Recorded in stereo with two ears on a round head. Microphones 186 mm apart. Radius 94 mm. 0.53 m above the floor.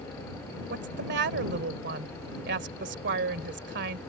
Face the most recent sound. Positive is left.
turn(degrees=-55)  # may be behind; listen again after turning